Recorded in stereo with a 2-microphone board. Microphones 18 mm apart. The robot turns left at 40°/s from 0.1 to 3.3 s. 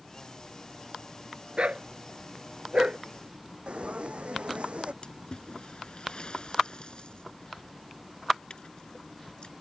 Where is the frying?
75° right (ahead or behind).